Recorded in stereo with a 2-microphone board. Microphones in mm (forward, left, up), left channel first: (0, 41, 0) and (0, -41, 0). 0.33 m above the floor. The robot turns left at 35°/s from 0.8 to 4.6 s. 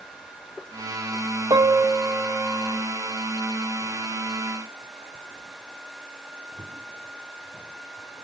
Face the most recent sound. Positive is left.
turn(degrees=120)